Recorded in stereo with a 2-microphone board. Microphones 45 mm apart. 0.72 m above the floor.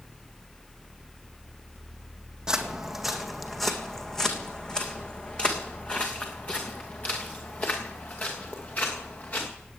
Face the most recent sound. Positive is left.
turn(degrees=40)  # may be behind; listen again after turning